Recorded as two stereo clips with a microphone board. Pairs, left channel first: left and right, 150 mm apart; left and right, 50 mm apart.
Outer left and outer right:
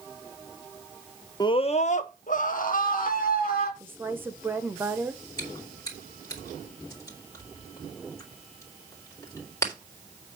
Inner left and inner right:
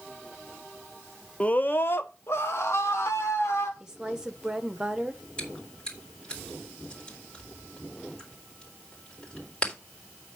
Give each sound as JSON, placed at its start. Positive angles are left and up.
{"t": 1.4, "sound": "a scream", "side_deg": 25, "distance_m": 0.6}
{"t": 3.8, "sound": "a woman speaking", "side_deg": -15, "distance_m": 1.2}
{"t": 5.4, "sound": "chewing", "side_deg": 20, "distance_m": 3.5}